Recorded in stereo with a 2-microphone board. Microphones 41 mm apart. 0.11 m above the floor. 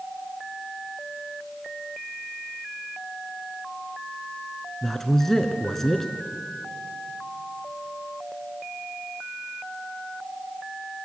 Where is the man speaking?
10° left (ahead or behind), 1.3 m.